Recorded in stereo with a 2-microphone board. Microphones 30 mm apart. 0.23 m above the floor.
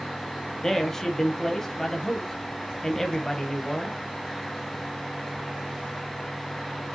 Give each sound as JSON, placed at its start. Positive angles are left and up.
{"t": 0.6, "sound": "a man speaking", "side_deg": 15, "distance_m": 1.0}